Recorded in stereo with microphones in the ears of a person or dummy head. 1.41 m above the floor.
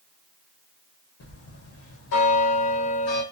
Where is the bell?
65° left (ahead or behind), 1.0 m.